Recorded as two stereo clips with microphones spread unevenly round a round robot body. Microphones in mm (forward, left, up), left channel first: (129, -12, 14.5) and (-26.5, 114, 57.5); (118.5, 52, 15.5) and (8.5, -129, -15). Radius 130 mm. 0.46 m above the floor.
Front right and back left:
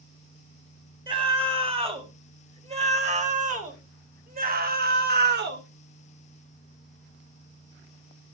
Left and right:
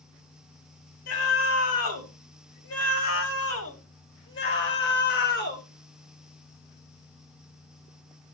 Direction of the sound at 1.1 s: 70° left.